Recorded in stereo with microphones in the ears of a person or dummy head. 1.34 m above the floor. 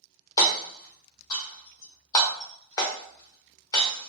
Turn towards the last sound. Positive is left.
turn(degrees=25)  # may be behind; listen again after turning